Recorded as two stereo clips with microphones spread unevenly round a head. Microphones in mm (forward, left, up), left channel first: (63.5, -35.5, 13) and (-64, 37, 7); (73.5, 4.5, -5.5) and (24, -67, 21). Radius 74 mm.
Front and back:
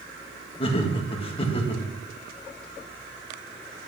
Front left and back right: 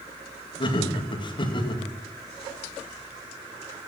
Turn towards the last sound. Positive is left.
turn(degrees=30)